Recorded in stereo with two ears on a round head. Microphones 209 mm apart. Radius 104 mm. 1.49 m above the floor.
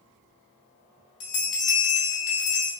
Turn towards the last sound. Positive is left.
turn(degrees=75)  # may be behind; listen again after turning